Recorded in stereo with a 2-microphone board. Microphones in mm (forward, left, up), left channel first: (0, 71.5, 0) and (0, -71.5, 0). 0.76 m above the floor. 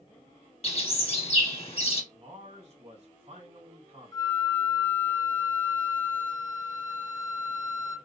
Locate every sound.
0.6 s a bird: 45° left (ahead or behind), 1.0 m
2.1 s a man speaking: 50° right (ahead or behind), 3 m
4.1 s a flute: 30° left (ahead or behind), 0.8 m